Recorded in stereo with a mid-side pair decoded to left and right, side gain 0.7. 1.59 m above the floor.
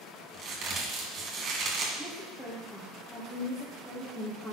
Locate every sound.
0.3 s a crack: 40° right, 2.5 m
2.0 s a woman speaking: 15° left, 2 m